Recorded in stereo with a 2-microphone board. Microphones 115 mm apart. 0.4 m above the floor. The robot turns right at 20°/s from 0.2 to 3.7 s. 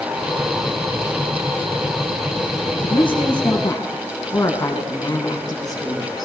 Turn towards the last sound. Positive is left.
turn(degrees=35)  # may be behind; listen again after turning